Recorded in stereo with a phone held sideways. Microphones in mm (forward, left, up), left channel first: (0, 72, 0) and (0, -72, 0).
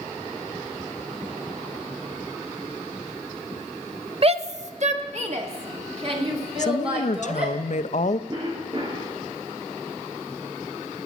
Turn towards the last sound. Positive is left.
turn(degrees=-35)  # may be behind; listen again after turning